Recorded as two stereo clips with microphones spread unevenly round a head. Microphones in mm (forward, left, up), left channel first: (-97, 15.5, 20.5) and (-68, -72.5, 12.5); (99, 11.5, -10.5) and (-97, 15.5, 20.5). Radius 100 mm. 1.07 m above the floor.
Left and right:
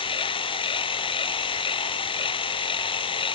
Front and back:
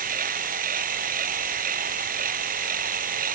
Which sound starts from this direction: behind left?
A machine running, at 0.0 s.